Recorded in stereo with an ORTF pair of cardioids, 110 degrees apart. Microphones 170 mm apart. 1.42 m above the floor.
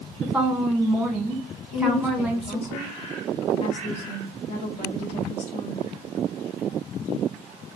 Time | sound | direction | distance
0.2 | a woman speaking | 5° right | 1.5 m
1.7 | a woman speaking | 40° left | 2 m